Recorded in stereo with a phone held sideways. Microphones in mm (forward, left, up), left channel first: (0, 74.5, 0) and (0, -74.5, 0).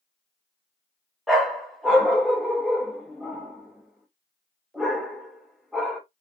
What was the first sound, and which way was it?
A dog barking, centre (ahead or behind).